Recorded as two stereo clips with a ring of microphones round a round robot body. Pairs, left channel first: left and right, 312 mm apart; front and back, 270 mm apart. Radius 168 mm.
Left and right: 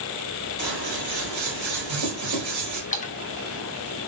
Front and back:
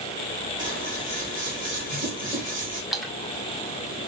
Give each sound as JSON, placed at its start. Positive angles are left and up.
{"t": 0.6, "sound": "scissors", "azimuth_deg": -95, "distance_m": 2.0}
{"t": 2.9, "sound": "a splash", "azimuth_deg": 90, "distance_m": 0.8}